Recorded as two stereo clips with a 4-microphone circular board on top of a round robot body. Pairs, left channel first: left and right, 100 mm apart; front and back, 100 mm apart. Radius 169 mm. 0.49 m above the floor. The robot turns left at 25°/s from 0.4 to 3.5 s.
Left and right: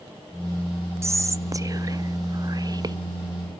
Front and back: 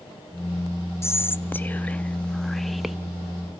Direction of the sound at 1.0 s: 45° right.